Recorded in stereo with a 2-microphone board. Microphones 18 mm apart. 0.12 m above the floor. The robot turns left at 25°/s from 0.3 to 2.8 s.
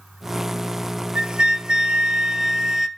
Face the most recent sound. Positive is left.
turn(degrees=-150)